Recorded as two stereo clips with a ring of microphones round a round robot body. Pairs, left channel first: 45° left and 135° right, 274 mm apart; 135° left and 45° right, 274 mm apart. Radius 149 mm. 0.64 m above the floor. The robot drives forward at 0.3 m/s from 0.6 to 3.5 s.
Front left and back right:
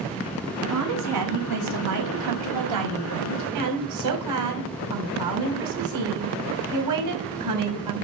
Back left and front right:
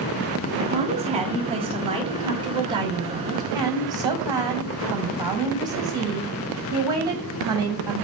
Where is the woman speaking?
110° right, 4.5 m; by 8.1 s 120° right, 5 m.